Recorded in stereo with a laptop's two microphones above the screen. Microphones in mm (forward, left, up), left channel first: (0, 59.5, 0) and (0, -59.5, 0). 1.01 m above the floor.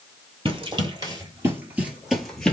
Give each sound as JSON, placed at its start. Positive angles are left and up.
{"t": 0.5, "sound": "running footsteps", "side_deg": -45, "distance_m": 1.3}